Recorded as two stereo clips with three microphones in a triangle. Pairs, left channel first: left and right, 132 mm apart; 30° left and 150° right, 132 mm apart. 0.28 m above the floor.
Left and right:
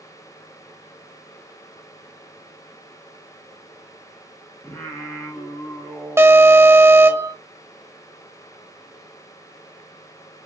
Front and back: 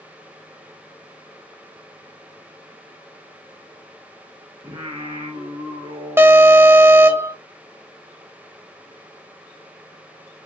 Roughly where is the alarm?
Behind right.